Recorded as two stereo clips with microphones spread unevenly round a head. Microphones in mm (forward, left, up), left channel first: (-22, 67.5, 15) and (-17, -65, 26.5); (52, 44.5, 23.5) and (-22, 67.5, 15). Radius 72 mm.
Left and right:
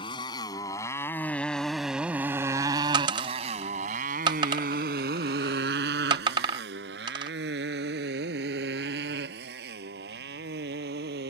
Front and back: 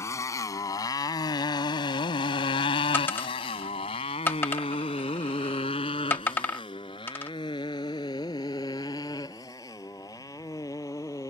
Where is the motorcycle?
30° left; by 11.3 s 85° right.